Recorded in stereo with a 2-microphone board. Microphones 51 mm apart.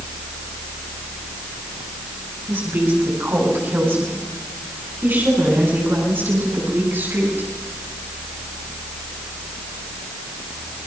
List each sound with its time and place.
2.5 s a woman speaking: 45° right (ahead or behind), 7 m; by 7.5 s 50° right (ahead or behind), 10 m